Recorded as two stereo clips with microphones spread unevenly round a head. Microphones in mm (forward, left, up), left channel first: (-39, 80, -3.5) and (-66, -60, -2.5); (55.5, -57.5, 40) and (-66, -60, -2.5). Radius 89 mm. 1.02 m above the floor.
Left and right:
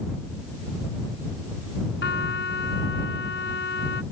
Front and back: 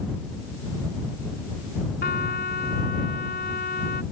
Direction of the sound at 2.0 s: 45° left.